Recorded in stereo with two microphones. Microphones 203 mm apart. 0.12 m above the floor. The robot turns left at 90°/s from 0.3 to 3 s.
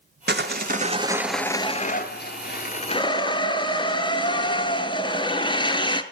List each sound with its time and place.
0.3 s sawing: 85° right, 0.8 m; by 6.0 s 30° left, 0.8 m